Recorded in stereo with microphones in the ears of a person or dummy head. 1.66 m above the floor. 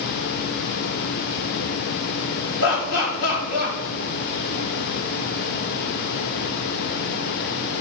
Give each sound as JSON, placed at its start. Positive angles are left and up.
{"t": 2.6, "sound": "laughter", "side_deg": 55, "distance_m": 4.0}